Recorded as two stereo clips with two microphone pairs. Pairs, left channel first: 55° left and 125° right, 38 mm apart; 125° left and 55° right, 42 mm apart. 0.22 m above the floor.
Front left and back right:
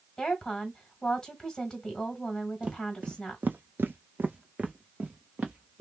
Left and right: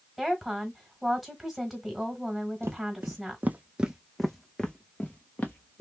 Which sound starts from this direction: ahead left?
A woman speaking, at 0.2 s.